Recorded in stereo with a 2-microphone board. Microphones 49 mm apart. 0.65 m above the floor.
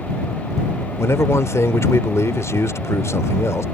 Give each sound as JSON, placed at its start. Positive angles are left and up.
{"t": 1.0, "sound": "a man speaking", "side_deg": 70}